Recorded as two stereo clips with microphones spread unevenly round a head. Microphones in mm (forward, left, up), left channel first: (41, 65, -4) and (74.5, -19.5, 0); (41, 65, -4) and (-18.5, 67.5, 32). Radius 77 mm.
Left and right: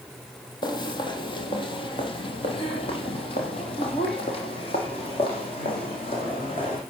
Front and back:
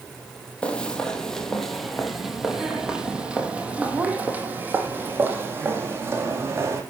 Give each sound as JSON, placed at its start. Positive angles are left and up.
{"t": 0.6, "sound": "footsteps", "azimuth_deg": 85, "distance_m": 3.0}